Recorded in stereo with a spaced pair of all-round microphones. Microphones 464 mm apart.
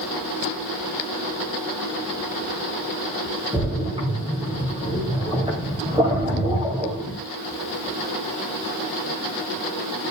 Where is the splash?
10° right (ahead or behind), 3.5 m.